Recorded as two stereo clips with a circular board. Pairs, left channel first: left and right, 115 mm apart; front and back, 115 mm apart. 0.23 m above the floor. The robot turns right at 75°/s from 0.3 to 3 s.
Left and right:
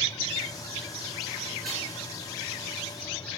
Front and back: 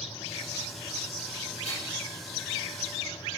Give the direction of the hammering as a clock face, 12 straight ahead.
12 o'clock.